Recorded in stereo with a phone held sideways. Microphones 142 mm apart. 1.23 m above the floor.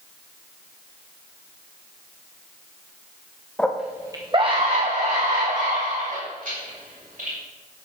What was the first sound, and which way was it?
A scream, 10° left (ahead or behind).